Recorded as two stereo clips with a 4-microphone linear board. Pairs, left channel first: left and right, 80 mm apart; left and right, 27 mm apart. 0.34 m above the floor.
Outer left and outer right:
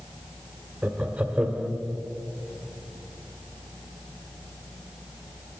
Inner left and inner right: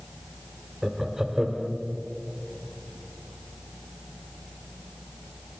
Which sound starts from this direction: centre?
Laughter, at 0.8 s.